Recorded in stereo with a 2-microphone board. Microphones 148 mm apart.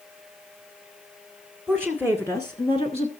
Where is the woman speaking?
Centre (ahead or behind), 1.3 m; by 3.1 s 45° left (ahead or behind), 1.5 m.